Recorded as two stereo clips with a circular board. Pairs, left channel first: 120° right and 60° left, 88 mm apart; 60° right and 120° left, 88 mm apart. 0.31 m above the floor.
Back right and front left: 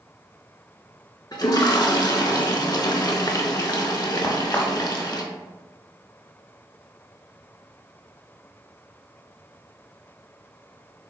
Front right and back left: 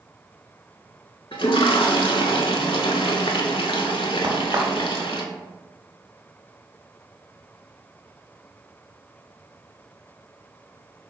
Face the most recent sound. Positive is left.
turn(degrees=170)